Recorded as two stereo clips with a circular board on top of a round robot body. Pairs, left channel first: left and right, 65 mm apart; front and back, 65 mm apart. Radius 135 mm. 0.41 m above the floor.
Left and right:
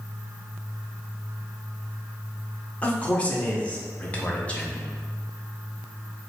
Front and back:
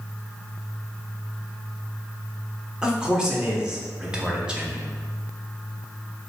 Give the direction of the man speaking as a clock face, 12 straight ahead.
8 o'clock.